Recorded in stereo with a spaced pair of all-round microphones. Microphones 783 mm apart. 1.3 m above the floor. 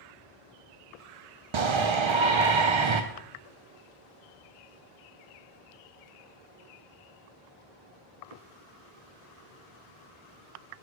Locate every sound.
1.5 s a shout: 45° right (ahead or behind), 0.5 m